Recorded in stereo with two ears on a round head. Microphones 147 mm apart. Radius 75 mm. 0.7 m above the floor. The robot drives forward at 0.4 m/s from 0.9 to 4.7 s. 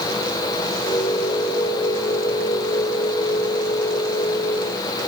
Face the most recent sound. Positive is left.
No sound to turn to.